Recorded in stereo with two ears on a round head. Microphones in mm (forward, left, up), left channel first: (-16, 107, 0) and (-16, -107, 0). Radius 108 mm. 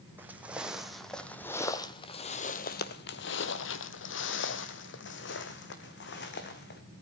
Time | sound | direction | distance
0.2 | footsteps | 10° right (ahead or behind) | 1.8 m